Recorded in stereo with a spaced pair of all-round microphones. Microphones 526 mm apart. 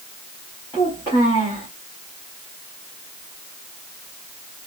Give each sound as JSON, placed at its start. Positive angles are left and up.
{"t": 0.7, "sound": "a child speaking", "side_deg": 10, "distance_m": 1.8}